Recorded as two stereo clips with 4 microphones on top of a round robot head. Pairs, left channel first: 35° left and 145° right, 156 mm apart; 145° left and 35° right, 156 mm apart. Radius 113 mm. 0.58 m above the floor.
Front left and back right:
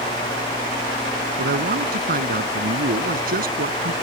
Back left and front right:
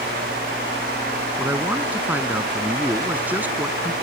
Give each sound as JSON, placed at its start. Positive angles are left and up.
{"t": 1.4, "sound": "a man speaking", "azimuth_deg": -115}